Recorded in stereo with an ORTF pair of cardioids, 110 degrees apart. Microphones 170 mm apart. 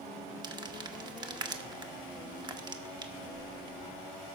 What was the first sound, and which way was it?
Crumpling, 25° right.